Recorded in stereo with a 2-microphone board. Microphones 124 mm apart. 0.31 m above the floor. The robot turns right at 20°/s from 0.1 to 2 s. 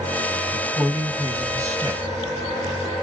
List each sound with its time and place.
0.5 s a man speaking: 10° right (ahead or behind), 2.0 m; by 2.0 s 30° right (ahead or behind), 2.0 m